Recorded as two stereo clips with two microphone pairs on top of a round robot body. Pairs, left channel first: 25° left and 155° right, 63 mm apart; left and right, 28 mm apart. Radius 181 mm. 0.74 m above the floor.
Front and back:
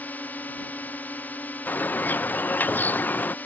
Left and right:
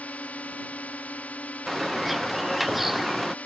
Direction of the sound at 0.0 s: 85° left.